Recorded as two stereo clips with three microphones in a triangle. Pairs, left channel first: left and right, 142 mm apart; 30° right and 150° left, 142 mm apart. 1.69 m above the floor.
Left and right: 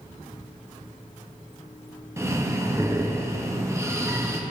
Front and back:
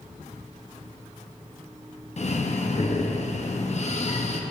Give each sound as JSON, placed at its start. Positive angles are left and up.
{"t": 2.2, "sound": "breathing", "azimuth_deg": -25, "distance_m": 0.6}